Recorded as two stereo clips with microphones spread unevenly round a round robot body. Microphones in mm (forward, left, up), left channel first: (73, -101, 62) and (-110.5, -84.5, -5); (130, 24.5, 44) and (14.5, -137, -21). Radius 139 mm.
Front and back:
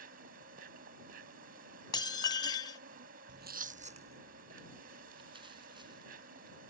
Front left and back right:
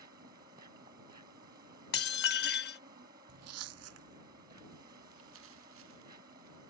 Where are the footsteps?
150° right; by 6.6 s 115° right.